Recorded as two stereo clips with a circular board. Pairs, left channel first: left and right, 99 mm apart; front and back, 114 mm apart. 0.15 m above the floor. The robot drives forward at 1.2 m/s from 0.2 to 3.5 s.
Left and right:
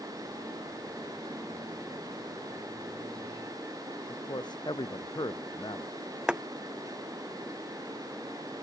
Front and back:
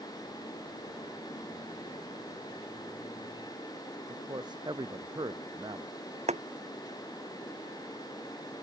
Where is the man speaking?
130° left.